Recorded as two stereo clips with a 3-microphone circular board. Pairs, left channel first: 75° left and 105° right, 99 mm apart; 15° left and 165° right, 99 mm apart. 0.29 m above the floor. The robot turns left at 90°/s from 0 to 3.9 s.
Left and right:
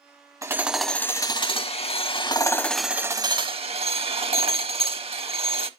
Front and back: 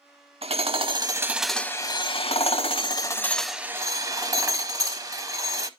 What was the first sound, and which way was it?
Hammering, 160° right.